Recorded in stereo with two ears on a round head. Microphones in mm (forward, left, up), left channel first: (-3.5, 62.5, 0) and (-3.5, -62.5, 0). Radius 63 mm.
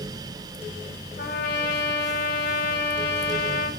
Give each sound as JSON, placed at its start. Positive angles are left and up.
{"t": 1.2, "sound": "a trumpet", "side_deg": 80, "distance_m": 5.0}